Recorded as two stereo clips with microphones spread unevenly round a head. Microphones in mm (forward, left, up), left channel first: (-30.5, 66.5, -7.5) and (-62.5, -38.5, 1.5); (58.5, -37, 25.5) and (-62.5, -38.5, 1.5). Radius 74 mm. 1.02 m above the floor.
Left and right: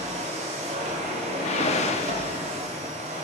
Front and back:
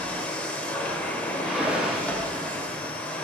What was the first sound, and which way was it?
A machine running, 75° right.